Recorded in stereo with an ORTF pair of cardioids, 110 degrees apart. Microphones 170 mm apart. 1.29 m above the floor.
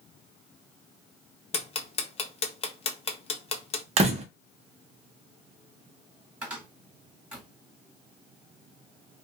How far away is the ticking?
About 0.6 m.